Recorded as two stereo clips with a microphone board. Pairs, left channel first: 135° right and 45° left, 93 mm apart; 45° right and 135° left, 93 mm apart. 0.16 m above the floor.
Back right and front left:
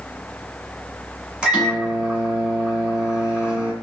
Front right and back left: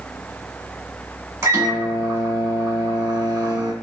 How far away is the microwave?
About 1.2 m.